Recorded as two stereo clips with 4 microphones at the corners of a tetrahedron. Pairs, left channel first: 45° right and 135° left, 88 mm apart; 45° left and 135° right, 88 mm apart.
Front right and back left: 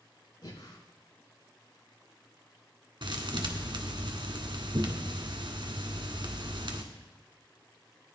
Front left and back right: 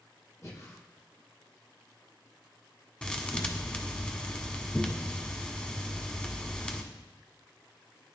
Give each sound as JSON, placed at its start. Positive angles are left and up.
{"t": 0.4, "sound": "breathing", "azimuth_deg": -10, "distance_m": 6.0}
{"t": 3.0, "sound": "a thud", "azimuth_deg": 125, "distance_m": 1.5}